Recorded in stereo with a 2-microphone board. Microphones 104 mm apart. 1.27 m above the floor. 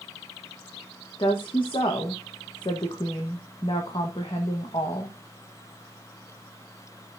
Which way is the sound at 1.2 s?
50° left (ahead or behind).